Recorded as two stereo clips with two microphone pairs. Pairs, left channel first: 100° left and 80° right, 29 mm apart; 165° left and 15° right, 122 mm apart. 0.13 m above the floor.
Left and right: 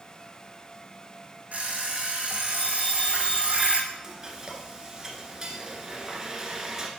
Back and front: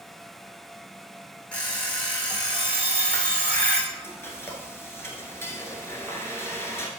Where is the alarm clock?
115° right, 3 m.